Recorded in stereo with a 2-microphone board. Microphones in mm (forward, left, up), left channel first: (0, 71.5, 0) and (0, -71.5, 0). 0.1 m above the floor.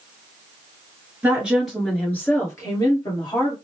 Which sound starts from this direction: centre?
A woman speaking, at 1.2 s.